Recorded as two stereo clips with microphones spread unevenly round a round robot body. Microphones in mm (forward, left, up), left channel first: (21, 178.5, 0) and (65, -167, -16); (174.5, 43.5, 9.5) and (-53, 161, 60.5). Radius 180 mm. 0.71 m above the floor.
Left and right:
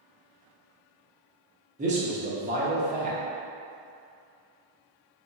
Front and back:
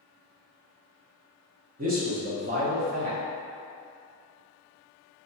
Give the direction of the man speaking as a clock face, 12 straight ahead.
5 o'clock.